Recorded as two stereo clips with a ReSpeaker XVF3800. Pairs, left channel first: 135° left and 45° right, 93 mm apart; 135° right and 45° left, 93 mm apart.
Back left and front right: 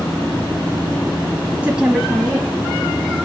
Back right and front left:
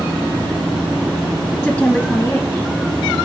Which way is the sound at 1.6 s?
85° right.